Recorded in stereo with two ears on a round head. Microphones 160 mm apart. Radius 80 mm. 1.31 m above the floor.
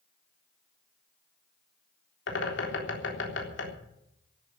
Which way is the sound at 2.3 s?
75° left (ahead or behind).